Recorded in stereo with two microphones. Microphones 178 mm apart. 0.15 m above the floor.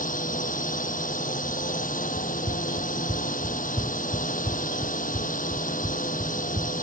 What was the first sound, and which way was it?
A drone, 50° left (ahead or behind).